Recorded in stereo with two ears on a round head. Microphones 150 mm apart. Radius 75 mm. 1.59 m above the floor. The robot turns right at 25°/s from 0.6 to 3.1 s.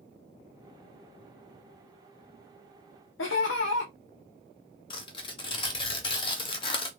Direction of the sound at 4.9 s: 30° left (ahead or behind).